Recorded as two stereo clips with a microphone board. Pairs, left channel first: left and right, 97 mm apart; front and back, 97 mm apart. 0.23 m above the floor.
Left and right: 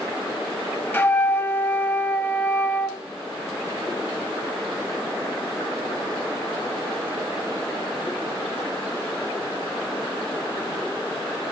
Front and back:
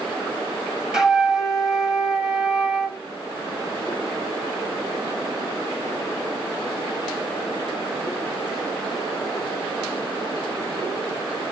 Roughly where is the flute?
Left.